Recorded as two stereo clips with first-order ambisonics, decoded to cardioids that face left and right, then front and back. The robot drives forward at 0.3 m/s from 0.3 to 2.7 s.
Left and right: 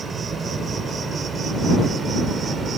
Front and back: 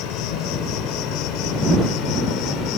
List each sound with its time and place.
0.0 s an insect: 20° right; by 2.8 s 25° right